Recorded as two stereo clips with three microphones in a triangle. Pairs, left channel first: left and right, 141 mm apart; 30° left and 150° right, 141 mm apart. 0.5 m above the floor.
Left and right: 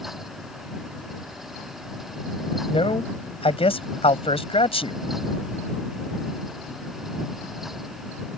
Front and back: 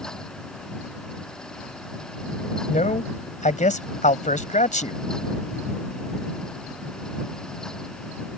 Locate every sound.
2.7 s a man speaking: 50° left